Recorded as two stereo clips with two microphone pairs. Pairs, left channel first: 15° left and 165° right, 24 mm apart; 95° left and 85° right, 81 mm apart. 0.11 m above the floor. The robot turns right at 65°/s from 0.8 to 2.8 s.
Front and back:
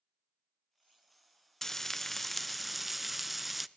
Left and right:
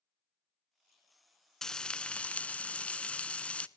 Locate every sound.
1.6 s frying: 40° left, 0.5 m; by 3.7 s 115° left, 0.5 m